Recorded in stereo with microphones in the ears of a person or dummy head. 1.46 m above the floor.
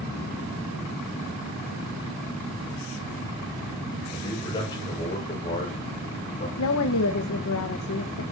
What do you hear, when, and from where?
4.1 s a man speaking: 20° left (ahead or behind), 6.5 m; by 6.5 s 35° left (ahead or behind), 4.5 m
6.6 s a woman speaking: 85° left, 1.3 m